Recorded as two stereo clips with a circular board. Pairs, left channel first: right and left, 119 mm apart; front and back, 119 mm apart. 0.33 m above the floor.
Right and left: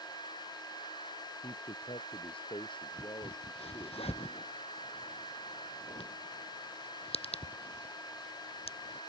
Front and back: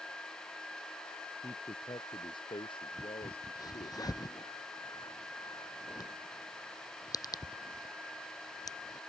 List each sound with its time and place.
1.4 s a man speaking: 55° right; by 4.0 s 35° right
3.0 s a crack: 55° right